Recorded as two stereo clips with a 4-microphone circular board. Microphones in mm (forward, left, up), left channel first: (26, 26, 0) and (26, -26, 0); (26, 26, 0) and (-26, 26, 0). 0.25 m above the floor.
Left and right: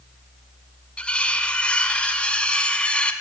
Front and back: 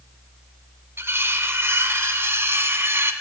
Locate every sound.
1.0 s cutlery clinking: 155° left, 1.3 m